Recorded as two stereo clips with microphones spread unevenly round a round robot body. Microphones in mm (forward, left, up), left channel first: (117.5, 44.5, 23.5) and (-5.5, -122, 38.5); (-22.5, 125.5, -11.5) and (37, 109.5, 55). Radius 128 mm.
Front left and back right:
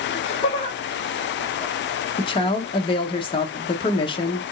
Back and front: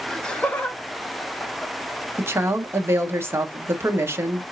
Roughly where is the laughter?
Left.